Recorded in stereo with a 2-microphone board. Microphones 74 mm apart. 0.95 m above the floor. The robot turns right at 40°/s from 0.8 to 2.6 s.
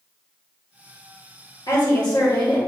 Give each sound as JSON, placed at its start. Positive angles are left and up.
{"t": 1.7, "sound": "a woman speaking", "azimuth_deg": 65, "distance_m": 1.5}